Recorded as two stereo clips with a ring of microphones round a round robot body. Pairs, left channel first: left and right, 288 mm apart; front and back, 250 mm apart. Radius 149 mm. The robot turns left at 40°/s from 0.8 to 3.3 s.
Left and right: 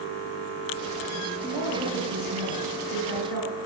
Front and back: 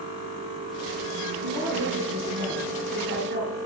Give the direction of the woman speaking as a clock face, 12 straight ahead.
5 o'clock.